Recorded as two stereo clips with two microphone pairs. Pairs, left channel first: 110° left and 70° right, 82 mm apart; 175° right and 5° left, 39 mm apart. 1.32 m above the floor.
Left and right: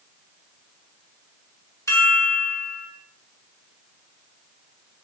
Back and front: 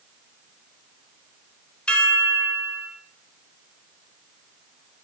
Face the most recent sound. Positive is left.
turn(degrees=145)